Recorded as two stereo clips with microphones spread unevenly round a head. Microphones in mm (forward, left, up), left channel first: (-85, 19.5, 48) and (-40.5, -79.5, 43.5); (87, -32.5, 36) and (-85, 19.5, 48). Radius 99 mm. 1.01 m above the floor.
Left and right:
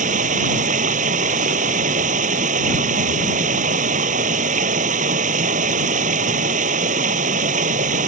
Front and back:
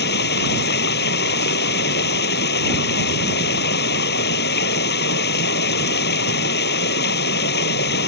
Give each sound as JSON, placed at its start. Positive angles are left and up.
{"t": 0.0, "sound": "running water", "azimuth_deg": -50}